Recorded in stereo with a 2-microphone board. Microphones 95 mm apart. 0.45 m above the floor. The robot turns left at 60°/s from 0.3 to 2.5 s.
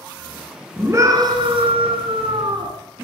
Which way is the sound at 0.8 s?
20° right.